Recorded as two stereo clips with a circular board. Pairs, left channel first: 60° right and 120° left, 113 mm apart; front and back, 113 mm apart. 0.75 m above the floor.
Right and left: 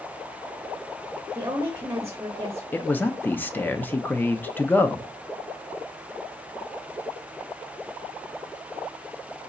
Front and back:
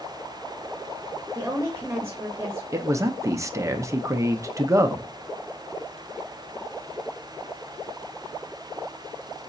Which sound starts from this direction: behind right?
A man speaking, at 2.7 s.